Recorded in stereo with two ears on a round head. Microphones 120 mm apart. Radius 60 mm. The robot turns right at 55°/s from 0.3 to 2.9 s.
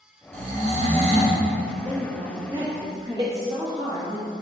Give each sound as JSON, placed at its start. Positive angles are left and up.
{"t": 0.3, "sound": "snoring", "azimuth_deg": -105, "distance_m": 1.3}
{"t": 1.9, "sound": "a woman speaking", "azimuth_deg": -95, "distance_m": 1.1}
{"t": 3.2, "sound": "a door slam", "side_deg": -30, "distance_m": 0.8}